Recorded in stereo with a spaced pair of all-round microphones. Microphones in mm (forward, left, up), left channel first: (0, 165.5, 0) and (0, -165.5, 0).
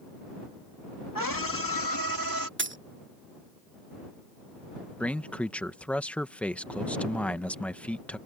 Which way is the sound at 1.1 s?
75° left (ahead or behind).